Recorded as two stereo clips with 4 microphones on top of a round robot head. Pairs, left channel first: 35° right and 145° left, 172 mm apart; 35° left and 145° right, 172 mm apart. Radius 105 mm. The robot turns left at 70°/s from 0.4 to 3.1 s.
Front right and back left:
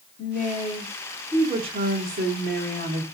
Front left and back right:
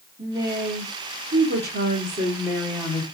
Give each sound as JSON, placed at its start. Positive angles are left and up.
{"t": 0.2, "sound": "a woman speaking", "azimuth_deg": -70, "distance_m": 2.0}